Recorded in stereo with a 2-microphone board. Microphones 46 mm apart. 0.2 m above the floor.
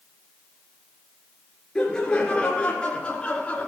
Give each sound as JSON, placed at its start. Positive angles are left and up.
{"t": 1.8, "sound": "laughter", "side_deg": 20, "distance_m": 2.5}